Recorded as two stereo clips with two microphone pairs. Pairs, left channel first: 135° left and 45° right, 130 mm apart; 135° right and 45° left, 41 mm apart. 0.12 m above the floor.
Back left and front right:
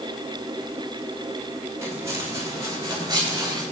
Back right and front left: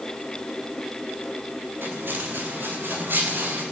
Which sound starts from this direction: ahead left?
Footsteps, at 1.8 s.